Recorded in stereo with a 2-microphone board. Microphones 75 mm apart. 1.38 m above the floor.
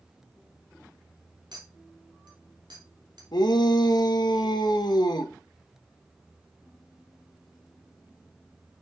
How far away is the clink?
About 2.5 m.